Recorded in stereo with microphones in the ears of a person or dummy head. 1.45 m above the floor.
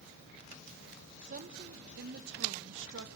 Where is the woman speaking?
45° right (ahead or behind), 1.7 m; by 3.1 s 70° right (ahead or behind), 2.5 m.